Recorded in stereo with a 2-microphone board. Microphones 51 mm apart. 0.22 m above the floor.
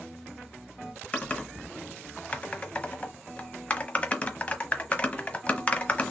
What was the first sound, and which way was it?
Typing on a keyboard, 25° left (ahead or behind).